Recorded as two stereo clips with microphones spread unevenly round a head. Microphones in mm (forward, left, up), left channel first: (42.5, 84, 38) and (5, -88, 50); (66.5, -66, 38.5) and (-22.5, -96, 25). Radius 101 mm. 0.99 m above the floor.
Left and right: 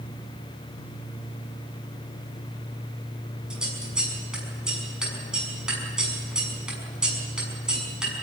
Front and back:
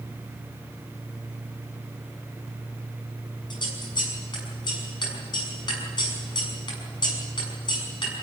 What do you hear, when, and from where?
3.5 s scissors: 15° right, 6 m